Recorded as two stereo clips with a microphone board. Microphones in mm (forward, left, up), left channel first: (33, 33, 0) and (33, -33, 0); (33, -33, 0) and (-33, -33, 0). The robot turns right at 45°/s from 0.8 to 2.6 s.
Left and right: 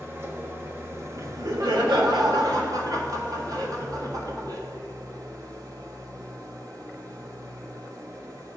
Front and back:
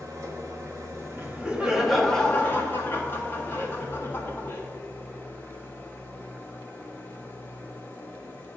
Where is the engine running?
145° right, 1.2 m; by 8.6 s 65° right, 1.2 m.